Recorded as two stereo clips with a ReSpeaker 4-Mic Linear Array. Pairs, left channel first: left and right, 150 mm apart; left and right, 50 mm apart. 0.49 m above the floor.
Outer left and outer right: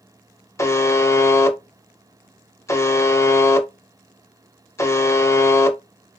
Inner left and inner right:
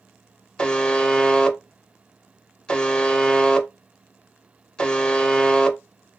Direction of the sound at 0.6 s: 20° left (ahead or behind).